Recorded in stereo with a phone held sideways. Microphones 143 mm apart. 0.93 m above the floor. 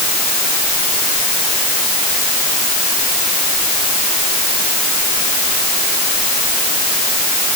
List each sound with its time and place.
Only background noise.